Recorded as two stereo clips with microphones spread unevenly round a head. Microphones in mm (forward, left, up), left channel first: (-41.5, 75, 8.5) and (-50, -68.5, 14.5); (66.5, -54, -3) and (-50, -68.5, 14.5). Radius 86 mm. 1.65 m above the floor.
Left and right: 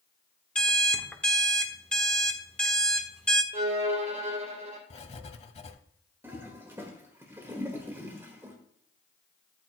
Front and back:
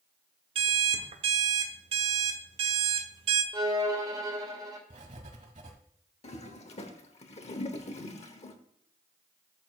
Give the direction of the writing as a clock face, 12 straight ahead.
8 o'clock.